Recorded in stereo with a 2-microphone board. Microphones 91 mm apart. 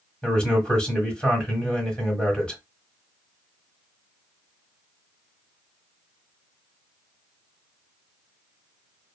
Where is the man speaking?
10° left (ahead or behind), 1.3 m.